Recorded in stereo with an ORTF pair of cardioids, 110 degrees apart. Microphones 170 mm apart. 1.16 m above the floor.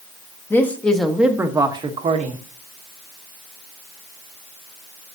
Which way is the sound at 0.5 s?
15° left.